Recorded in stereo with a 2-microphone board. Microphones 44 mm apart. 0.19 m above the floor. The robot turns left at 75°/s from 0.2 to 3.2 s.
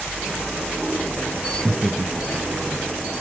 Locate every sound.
1.6 s laughter: 5° left (ahead or behind), 1.7 m; by 2.9 s 45° right (ahead or behind), 1.7 m